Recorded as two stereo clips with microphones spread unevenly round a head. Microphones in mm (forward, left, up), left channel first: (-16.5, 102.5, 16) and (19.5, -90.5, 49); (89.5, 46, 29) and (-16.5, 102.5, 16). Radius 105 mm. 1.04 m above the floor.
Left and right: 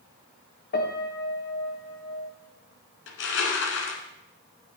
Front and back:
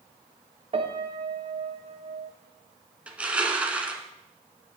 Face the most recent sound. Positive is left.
turn(degrees=70)